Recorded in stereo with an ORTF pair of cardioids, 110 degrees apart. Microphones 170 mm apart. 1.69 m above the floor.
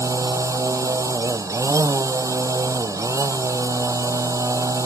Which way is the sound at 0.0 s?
15° right.